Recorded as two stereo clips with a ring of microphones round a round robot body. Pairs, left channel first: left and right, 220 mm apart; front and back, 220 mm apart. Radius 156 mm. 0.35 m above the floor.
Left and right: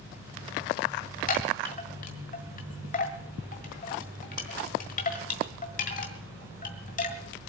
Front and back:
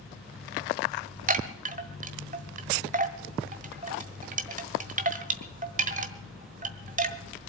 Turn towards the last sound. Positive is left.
turn(degrees=140)